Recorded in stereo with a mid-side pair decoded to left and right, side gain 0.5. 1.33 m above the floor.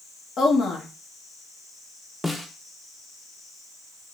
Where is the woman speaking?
55° left, 1.2 m.